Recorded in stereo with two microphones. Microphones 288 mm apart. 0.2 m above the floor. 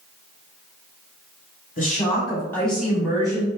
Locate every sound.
1.8 s a woman speaking: 30° left (ahead or behind), 1.1 m; by 3.5 s 20° right (ahead or behind), 1.2 m